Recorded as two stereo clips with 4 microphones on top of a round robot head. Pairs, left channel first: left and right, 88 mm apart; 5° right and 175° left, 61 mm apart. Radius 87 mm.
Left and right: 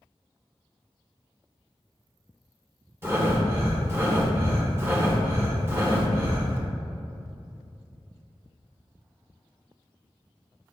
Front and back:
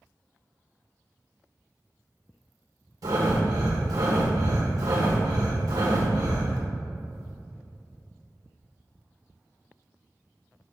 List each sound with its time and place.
3.0 s breathing: 155° right, 1.2 m